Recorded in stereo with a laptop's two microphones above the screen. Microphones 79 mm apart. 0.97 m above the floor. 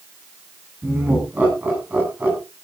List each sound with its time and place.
0.8 s laughter: 20° right (ahead or behind), 9 m